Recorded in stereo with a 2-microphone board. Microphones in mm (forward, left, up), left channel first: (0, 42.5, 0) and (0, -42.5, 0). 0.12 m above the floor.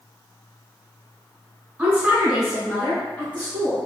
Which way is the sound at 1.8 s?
20° right (ahead or behind).